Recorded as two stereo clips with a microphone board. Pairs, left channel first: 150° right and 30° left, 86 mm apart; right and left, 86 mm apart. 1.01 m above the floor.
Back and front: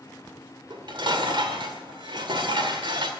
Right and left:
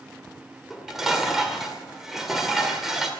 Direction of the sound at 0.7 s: 5° left.